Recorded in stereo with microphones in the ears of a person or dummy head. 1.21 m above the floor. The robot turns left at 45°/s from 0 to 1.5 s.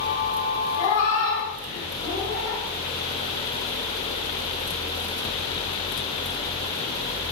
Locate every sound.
0.8 s a cat meowing: 45° left (ahead or behind), 1.4 m; by 2.6 s 40° left (ahead or behind), 1.4 m